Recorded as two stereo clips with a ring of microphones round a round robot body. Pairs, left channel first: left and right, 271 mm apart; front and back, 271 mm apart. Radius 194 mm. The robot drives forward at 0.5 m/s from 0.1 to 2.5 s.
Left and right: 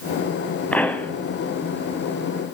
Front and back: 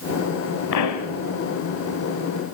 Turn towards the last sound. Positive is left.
turn(degrees=170)